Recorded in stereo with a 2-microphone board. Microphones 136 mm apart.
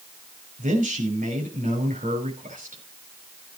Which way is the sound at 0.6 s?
75° right (ahead or behind).